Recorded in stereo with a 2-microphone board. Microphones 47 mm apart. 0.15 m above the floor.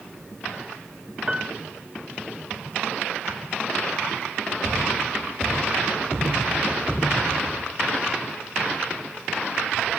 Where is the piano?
20° right (ahead or behind), 0.8 m.